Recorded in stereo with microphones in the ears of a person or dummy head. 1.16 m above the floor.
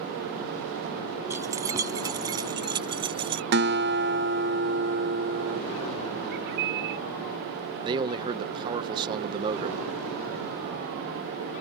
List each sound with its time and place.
1.3 s keys jangling: 5° right (ahead or behind); by 3.4 s 15° right (ahead or behind)
3.5 s a guitar: 35° right (ahead or behind)
6.3 s a bird: 65° right (ahead or behind)
7.8 s a man speaking: 25° right (ahead or behind)